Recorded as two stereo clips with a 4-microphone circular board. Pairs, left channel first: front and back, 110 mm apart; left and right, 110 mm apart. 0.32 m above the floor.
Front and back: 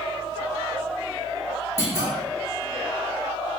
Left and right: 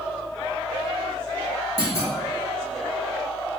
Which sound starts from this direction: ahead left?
A clunk, at 1.8 s.